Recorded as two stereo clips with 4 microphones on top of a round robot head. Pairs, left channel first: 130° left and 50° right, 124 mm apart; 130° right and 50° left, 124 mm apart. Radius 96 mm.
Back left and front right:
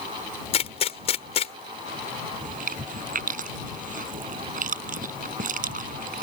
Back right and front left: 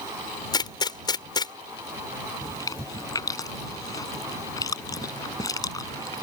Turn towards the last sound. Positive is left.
turn(degrees=-65)